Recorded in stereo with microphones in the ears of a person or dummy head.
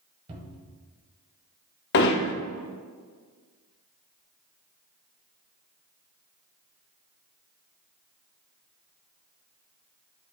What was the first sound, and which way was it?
A cupboard door, 35° right (ahead or behind).